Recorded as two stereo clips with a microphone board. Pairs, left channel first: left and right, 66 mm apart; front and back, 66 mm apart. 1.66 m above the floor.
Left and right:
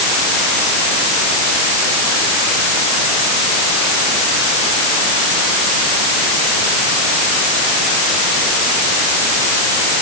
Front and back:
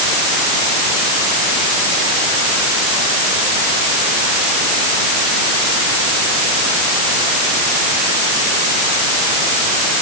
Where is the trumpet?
I don't hear a trumpet.